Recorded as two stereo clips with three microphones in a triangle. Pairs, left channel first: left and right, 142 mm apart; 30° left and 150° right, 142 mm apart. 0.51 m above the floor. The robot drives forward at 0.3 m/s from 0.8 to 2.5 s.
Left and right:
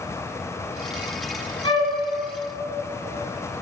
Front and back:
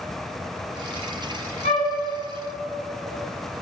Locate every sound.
1.6 s a flute: 50° left, 1.1 m; by 1.9 s 55° left, 1.1 m